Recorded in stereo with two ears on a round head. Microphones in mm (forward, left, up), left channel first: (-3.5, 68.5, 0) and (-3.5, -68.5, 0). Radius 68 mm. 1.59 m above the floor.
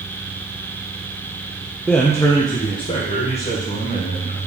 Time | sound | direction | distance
1.9 | a man speaking | centre (ahead or behind) | 0.6 m